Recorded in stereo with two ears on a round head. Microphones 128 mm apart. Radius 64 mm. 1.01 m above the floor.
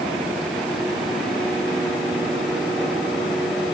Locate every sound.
Only background noise.